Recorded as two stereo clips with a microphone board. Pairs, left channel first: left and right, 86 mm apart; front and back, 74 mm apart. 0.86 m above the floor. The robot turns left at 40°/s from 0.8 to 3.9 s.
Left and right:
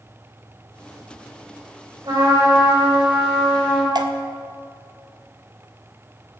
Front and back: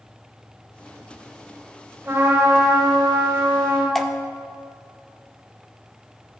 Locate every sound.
2.0 s a trumpet: 130° right, 3.5 m; by 3.9 s 155° left, 3.5 m
4.0 s dripping: 90° right, 0.6 m